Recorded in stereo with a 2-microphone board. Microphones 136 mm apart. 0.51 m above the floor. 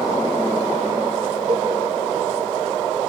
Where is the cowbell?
45° right (ahead or behind), 1.4 m.